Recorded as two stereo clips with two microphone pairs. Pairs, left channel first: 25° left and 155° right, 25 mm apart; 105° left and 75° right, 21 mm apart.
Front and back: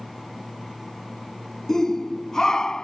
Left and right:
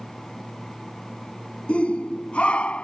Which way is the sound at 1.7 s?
95° left.